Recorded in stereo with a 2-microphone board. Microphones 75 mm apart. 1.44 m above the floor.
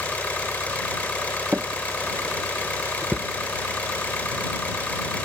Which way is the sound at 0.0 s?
20° left (ahead or behind).